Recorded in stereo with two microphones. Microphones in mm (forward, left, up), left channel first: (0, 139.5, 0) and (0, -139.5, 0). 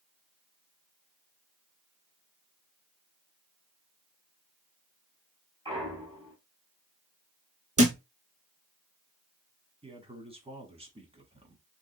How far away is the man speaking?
About 1.2 m.